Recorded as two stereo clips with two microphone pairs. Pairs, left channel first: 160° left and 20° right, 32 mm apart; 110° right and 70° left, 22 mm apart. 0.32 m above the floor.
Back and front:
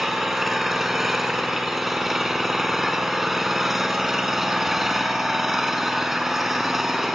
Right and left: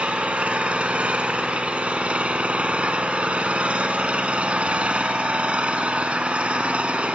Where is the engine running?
55° left, 1.4 m.